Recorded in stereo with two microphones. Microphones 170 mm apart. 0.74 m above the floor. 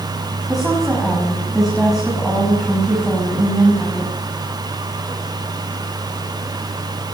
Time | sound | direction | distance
0.5 | a woman speaking | centre (ahead or behind) | 7 m